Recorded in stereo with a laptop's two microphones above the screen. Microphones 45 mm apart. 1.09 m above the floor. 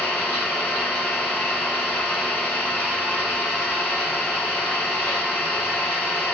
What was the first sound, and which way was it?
An engine running, 90° left.